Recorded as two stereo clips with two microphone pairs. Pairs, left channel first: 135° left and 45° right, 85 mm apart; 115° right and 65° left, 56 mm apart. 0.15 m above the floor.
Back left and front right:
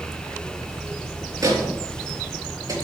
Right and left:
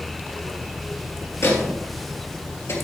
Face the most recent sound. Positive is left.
turn(degrees=-85)